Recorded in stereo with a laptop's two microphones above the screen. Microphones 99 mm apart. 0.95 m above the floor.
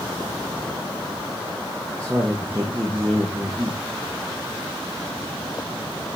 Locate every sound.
2.0 s a man speaking: 30° right (ahead or behind), 1.0 m